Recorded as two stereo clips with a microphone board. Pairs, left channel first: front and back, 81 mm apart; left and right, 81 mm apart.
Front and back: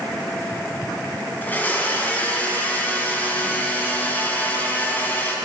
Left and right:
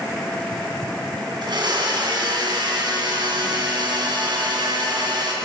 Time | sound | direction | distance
1.4 | a blender | 70° right | 2.5 m